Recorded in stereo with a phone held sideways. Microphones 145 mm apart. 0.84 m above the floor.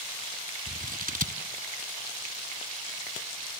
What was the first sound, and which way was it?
Scissors, 70° right (ahead or behind).